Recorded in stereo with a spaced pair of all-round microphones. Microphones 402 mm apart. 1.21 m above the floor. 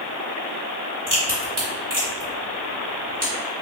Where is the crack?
45° right (ahead or behind), 1.4 m.